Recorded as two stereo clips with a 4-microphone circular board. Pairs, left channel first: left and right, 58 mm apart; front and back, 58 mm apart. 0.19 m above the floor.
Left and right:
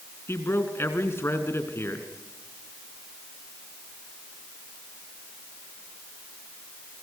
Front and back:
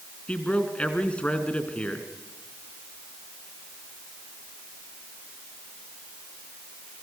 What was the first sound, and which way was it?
A man speaking, 65° left.